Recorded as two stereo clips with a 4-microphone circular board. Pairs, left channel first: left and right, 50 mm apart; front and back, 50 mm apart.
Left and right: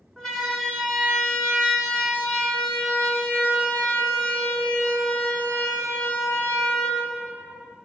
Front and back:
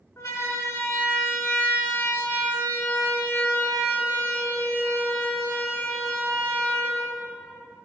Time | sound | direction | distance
0.2 | a siren | 5° left | 4.5 m